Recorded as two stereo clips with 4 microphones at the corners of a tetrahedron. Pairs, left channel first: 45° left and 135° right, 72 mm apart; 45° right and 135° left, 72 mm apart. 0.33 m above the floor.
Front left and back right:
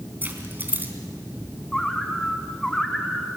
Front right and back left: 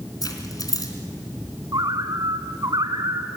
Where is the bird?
125° left, 1.5 m.